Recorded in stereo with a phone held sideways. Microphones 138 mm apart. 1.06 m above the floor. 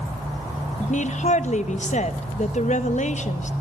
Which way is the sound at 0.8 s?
60° left (ahead or behind).